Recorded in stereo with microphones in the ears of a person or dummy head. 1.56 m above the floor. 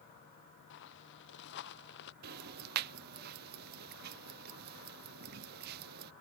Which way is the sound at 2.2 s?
50° right (ahead or behind).